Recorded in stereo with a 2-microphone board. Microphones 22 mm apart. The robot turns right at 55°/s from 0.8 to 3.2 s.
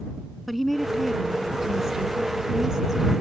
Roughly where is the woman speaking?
Behind.